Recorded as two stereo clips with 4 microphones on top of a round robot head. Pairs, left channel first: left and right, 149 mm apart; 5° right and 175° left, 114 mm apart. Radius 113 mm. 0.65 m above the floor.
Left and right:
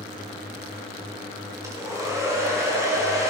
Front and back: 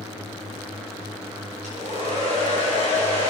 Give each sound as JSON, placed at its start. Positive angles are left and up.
{"t": 1.6, "sound": "a hair dryer", "azimuth_deg": -160, "distance_m": 5.0}